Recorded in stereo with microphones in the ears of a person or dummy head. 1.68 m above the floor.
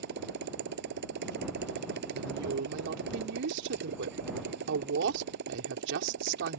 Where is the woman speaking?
70° right (ahead or behind).